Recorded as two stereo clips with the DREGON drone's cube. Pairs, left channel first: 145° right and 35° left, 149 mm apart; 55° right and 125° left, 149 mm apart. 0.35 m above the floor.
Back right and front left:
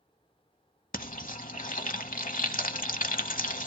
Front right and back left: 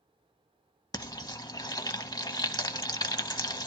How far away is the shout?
No shout in this recording.